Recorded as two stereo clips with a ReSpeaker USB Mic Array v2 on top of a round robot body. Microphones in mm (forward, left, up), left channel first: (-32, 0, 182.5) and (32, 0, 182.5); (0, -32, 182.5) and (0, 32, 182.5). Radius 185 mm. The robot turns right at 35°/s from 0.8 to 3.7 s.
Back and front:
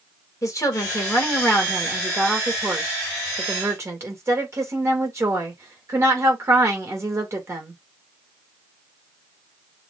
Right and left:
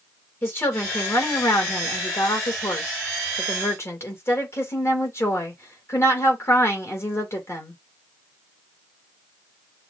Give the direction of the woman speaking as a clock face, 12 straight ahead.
5 o'clock.